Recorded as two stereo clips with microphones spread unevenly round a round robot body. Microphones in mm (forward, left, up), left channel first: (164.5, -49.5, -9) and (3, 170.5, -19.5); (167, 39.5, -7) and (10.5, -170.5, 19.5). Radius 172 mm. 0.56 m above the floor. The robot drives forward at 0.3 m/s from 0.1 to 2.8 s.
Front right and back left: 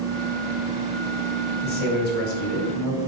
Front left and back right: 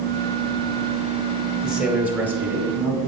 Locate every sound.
1.6 s a man speaking: 35° right, 1.9 m; by 3.0 s 45° right, 1.7 m